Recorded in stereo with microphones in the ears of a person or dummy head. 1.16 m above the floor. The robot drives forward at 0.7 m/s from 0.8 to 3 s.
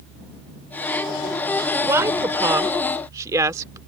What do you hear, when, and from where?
1.8 s a woman speaking: 15° right (ahead or behind)